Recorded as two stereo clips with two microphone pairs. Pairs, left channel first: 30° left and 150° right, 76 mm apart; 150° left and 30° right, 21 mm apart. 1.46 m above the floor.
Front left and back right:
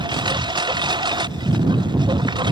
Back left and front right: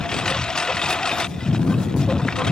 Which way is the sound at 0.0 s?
155° right.